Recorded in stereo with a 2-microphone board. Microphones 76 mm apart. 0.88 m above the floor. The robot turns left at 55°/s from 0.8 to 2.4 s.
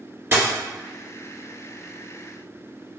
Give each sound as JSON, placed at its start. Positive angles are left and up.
{"t": 0.3, "sound": "a dropped coin", "side_deg": -30, "distance_m": 1.7}